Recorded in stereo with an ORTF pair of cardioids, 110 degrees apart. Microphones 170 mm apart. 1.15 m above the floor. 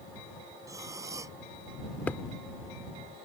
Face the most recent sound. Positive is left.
turn(degrees=10)